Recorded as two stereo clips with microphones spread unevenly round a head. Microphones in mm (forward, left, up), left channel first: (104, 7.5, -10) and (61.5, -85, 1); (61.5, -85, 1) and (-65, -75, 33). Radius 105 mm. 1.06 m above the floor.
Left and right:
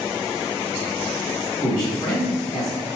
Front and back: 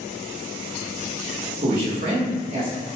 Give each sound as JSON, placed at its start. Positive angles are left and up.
{"t": 1.6, "sound": "a man speaking", "azimuth_deg": 130, "distance_m": 1.5}